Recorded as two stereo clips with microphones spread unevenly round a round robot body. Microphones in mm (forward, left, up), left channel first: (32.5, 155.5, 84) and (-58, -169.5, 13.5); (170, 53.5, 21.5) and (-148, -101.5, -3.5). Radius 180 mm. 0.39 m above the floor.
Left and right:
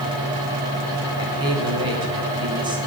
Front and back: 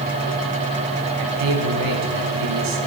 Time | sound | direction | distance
1.2 | a man speaking | 175° right | 3 m